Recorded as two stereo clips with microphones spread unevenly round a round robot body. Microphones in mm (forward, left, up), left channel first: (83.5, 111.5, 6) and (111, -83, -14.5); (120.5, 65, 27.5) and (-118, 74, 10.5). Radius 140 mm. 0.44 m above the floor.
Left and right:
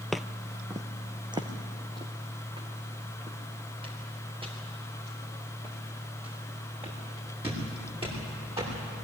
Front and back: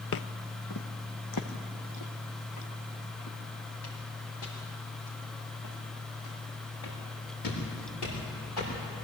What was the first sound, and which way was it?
Footsteps, 15° left.